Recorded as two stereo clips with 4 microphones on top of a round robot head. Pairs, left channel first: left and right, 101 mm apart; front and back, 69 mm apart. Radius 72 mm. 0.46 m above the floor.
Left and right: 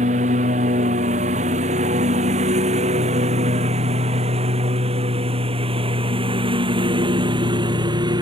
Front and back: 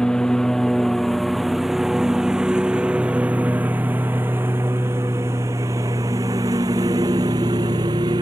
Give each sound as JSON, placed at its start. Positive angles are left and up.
{"t": 0.0, "sound": "a lawn mower", "azimuth_deg": -85}